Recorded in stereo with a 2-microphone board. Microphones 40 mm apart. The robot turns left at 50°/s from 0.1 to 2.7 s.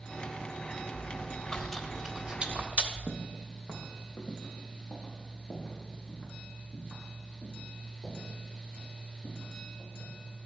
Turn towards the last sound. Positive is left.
turn(degrees=20)  # may be behind; listen again after turning